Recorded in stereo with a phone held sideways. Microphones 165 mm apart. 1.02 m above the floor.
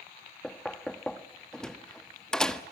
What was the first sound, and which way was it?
Knocking, 5° left (ahead or behind).